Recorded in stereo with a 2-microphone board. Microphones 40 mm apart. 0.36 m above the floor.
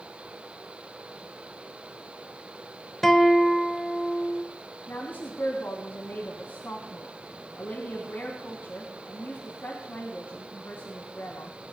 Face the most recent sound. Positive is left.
turn(degrees=70)  # may be behind; listen again after turning